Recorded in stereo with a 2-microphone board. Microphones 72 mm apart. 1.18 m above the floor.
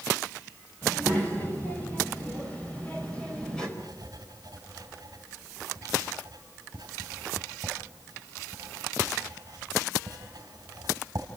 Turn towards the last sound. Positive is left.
turn(degrees=-55)  # may be behind; listen again after turning